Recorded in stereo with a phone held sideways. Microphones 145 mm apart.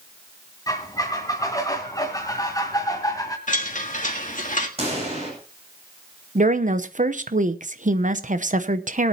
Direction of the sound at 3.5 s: 55° left (ahead or behind).